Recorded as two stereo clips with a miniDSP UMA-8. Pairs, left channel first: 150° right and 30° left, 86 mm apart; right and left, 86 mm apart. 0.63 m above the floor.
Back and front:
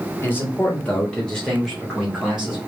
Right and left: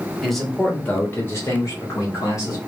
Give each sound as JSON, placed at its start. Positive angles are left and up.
{"t": 0.2, "sound": "a man speaking", "azimuth_deg": 180, "distance_m": 1.2}